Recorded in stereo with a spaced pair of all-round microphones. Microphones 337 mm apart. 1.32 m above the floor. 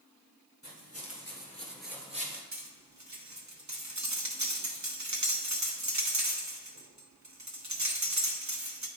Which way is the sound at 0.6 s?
55° left (ahead or behind).